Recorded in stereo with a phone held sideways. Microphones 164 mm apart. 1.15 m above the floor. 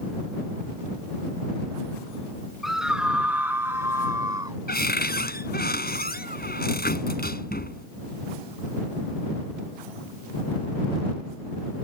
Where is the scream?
Centre (ahead or behind); by 4.6 s 25° right (ahead or behind).